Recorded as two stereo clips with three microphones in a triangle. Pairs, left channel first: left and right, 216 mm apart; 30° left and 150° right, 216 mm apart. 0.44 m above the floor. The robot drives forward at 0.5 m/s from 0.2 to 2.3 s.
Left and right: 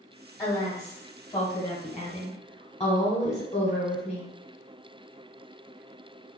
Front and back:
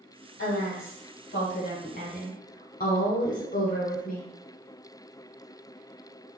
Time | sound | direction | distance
0.4 | a woman speaking | 20° left | 1.6 m